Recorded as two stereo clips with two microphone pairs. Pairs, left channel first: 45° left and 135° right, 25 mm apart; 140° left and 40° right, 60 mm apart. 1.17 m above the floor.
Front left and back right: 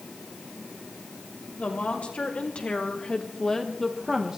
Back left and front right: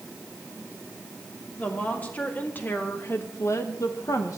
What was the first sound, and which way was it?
A woman speaking, 75° left.